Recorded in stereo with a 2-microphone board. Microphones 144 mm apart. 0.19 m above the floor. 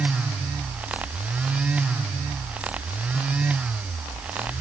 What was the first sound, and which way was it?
Only background noise.